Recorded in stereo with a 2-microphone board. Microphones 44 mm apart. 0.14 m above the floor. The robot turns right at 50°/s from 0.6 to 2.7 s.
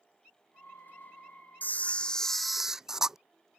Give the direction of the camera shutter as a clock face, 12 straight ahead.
8 o'clock.